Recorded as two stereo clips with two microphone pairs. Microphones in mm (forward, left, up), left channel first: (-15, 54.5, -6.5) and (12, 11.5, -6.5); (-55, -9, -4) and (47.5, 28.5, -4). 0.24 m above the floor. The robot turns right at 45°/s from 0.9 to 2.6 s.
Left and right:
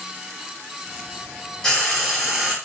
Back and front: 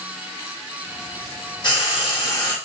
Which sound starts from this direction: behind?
Frying, at 1.6 s.